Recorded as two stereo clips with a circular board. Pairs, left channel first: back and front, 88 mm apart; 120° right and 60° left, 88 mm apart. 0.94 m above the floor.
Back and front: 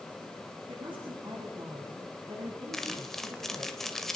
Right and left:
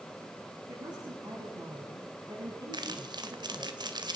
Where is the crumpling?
95° left, 2 m.